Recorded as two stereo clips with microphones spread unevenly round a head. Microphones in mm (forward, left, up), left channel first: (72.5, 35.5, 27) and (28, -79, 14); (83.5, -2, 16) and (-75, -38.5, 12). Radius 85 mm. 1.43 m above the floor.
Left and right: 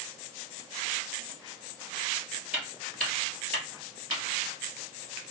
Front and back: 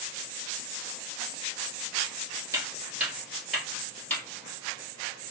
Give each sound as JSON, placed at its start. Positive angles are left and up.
{"t": 2.5, "sound": "footsteps", "azimuth_deg": 155, "distance_m": 1.4}